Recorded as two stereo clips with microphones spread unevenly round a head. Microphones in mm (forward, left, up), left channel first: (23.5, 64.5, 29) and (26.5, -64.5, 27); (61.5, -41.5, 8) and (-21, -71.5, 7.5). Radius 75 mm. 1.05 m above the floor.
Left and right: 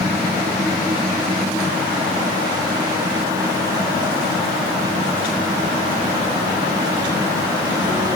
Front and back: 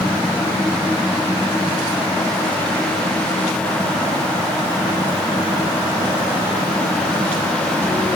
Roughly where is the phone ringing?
No phone ringing in this recording.